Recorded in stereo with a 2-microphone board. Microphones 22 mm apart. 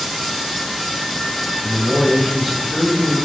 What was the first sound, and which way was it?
A man speaking, 15° right (ahead or behind).